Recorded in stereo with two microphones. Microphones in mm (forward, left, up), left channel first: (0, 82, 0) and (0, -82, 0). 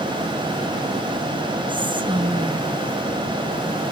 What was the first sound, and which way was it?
Whispering, 30° right (ahead or behind).